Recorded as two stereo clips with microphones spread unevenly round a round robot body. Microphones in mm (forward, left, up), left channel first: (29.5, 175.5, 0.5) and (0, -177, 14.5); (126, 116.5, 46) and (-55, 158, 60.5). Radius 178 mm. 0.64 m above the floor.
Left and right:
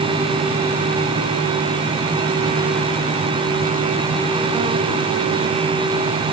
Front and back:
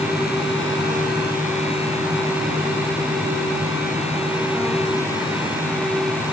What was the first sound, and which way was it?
Only background noise.